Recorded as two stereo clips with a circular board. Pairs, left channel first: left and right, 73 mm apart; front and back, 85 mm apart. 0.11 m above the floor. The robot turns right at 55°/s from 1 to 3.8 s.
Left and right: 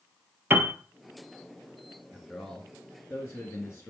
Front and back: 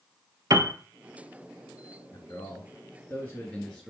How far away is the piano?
About 0.6 m.